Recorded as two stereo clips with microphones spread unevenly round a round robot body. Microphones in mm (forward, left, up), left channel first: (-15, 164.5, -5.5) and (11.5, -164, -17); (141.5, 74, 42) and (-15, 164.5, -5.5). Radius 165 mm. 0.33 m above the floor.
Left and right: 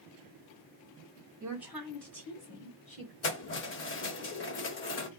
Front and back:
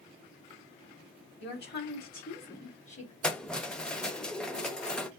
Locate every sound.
1.4 s a woman speaking: 5° right, 2 m; by 3.1 s 30° left, 2 m
3.2 s keys jangling: 75° left, 0.7 m